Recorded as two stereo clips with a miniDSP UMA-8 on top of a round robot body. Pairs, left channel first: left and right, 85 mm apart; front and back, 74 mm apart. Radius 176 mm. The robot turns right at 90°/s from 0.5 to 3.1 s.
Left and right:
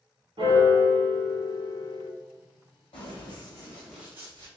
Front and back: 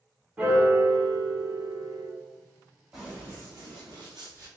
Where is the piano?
115° right, 1.3 m; by 2.1 s 30° left, 1.3 m.